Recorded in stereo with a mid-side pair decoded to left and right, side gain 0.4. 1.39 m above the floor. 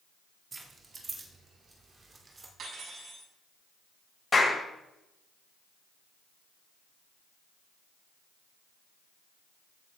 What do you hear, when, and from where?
0.5 s keys jangling: 45° right, 2 m; by 2.5 s 35° right, 3 m
2.6 s cutlery clinking: 65° right, 7 m
4.3 s a clap: 30° left, 6.5 m